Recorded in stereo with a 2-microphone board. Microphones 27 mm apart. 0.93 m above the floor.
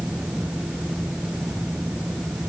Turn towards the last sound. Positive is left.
No sound to turn to.